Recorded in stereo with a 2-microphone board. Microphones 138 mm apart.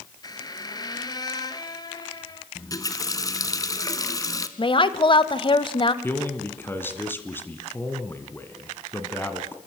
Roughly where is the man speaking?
Centre.